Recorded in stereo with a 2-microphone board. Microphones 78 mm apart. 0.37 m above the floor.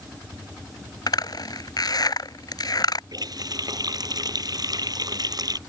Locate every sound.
1.1 s a zipper: 60° left (ahead or behind)
3.1 s a running tap: 55° right (ahead or behind)